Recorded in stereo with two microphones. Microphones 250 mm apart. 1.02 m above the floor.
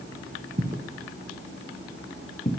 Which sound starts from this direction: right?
Footsteps, at 0.6 s.